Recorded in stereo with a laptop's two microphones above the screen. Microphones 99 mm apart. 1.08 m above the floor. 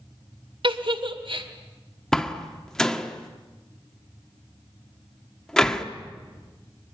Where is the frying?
No frying in this recording.